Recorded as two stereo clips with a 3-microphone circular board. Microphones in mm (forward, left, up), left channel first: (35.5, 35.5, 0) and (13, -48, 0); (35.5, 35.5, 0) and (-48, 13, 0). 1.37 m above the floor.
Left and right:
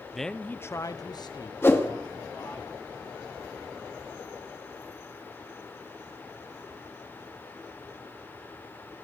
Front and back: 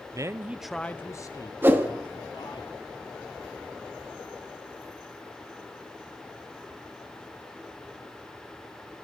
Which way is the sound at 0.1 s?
165° left.